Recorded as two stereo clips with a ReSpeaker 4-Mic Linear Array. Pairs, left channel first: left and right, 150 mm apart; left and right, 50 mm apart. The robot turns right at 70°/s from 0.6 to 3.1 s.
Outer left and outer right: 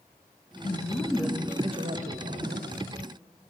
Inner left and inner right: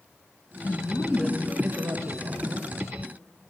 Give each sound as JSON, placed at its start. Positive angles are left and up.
{"t": 0.6, "sound": "a woman speaking", "azimuth_deg": 140, "distance_m": 1.1}